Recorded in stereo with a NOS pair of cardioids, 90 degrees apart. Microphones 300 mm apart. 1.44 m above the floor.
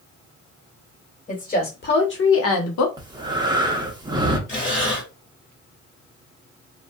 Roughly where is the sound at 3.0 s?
Ahead.